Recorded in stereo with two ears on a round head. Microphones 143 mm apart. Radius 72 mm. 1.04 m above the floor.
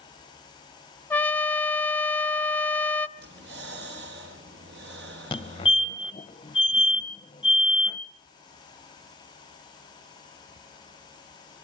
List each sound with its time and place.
1.1 s a trumpet: 10° left (ahead or behind), 0.7 m
3.2 s breathing: 75° right (ahead or behind), 4.5 m
5.3 s a fire alarm: 30° left (ahead or behind), 1.6 m